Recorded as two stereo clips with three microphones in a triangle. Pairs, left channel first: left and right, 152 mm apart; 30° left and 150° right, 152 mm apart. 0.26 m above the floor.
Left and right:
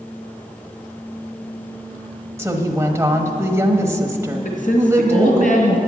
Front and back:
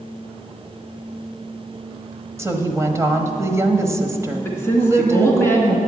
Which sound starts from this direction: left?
A woman speaking, at 4.5 s.